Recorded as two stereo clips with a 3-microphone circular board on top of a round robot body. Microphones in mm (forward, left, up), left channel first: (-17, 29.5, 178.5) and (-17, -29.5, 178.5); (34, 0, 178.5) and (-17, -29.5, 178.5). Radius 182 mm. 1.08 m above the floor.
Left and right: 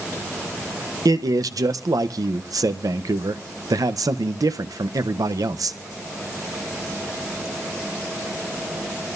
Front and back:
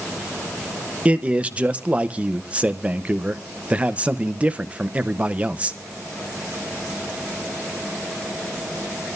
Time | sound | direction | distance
1.1 | a man speaking | 80° right | 0.9 m